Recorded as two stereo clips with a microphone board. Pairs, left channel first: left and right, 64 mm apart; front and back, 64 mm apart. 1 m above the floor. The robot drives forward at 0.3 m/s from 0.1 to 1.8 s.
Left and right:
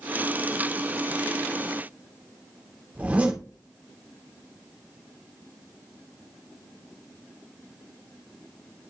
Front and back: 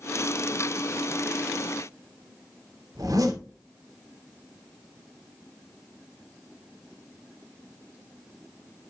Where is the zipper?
160° right, 2.5 m.